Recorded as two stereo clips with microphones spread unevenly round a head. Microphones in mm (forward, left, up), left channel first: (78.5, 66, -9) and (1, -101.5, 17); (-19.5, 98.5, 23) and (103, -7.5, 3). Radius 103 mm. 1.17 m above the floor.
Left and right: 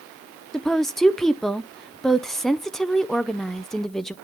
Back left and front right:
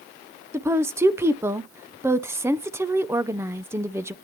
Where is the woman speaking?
5° right, 0.6 m.